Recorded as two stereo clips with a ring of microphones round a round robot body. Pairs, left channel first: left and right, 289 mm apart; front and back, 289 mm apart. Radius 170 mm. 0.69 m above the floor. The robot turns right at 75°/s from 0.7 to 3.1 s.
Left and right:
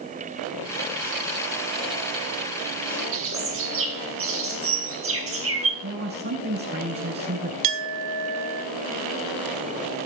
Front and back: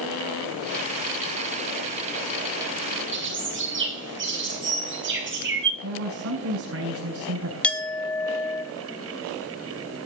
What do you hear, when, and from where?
3.1 s a bird: 130° right, 7.5 m
5.8 s a man speaking: 140° right, 7 m
7.6 s a clink: 85° right, 3.5 m